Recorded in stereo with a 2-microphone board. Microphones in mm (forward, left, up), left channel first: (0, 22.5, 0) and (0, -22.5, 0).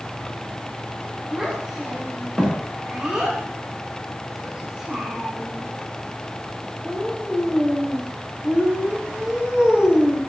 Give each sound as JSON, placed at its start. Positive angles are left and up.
{"t": 1.3, "sound": "a child speaking", "side_deg": -10, "distance_m": 5.5}